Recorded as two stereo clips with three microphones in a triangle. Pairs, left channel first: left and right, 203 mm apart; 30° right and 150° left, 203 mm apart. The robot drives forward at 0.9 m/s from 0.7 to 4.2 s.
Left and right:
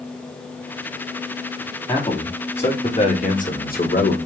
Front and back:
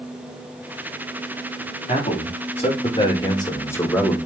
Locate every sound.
1.9 s a man speaking: 25° left, 3 m; by 4.2 s 55° left, 1.5 m